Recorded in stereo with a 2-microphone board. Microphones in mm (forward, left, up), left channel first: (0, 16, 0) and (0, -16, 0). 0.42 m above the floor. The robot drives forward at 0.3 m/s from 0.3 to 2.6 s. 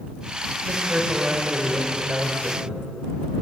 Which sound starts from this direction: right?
A man speaking, at 0.6 s.